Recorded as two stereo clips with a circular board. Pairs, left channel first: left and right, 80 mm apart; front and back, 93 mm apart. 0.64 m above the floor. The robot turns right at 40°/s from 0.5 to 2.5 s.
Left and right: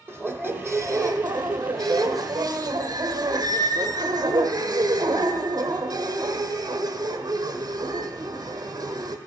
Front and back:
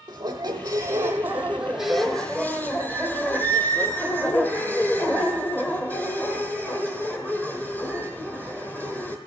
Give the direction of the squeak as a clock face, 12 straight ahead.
5 o'clock.